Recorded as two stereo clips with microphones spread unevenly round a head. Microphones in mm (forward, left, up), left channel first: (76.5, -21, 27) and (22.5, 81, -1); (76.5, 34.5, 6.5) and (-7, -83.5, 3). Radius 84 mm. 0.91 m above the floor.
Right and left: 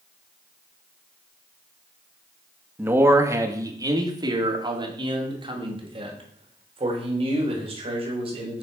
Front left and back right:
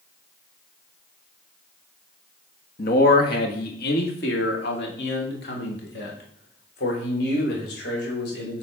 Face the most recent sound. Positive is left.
turn(degrees=85)